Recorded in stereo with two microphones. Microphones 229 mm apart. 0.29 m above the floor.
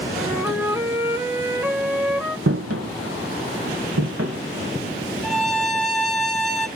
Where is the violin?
Centre (ahead or behind), 0.9 m.